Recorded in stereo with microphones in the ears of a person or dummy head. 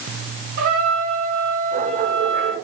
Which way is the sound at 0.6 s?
60° right (ahead or behind).